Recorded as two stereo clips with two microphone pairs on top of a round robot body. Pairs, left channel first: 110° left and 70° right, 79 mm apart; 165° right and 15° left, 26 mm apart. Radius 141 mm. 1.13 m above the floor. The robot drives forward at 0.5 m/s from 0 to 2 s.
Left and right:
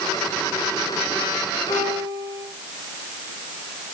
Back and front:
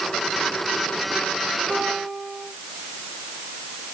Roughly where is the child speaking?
No child speaking in this recording.